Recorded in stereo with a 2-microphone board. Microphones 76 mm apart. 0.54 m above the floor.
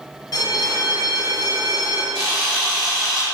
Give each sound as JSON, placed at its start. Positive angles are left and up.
{"t": 0.3, "sound": "a bell", "side_deg": 55, "distance_m": 0.5}
{"t": 2.1, "sound": "a camera shutter", "side_deg": 5, "distance_m": 1.4}